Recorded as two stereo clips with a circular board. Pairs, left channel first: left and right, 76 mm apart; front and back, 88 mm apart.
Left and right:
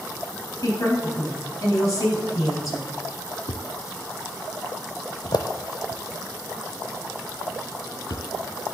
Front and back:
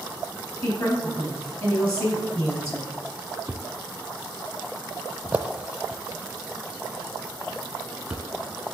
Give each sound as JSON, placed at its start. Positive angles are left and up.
{"t": 0.6, "sound": "a woman speaking", "azimuth_deg": 40, "distance_m": 3.5}
{"t": 3.5, "sound": "a thud", "azimuth_deg": 105, "distance_m": 0.6}